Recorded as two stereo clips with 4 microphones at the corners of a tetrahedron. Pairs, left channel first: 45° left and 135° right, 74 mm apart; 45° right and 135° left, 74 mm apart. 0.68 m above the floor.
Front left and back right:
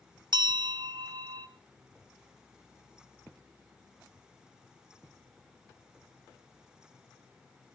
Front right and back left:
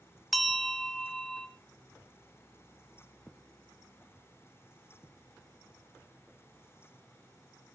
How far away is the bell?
About 1.1 m.